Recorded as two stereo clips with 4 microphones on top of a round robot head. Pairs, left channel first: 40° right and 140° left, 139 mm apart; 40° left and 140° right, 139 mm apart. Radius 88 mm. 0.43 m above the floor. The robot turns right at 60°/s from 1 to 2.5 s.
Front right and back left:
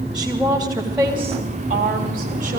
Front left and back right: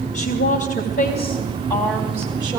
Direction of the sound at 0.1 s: 55° left.